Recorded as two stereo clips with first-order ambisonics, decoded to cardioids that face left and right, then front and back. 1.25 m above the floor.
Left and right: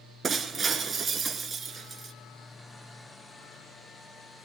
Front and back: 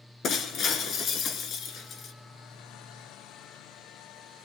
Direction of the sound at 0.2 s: 30° right.